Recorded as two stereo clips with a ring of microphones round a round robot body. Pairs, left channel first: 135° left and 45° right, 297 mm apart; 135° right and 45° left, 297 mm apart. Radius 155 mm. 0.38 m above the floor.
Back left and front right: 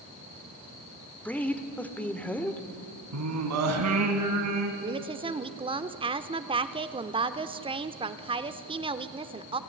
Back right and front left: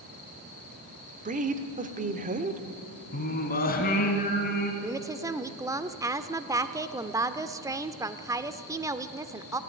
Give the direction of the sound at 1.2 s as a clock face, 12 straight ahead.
10 o'clock.